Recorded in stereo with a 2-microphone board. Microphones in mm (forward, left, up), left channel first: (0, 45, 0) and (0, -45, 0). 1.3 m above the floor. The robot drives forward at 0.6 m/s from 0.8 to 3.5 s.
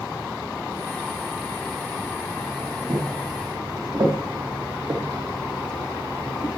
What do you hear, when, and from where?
2.9 s footsteps: 60° right (ahead or behind), 4.5 m; by 6.6 s 50° left (ahead or behind), 2 m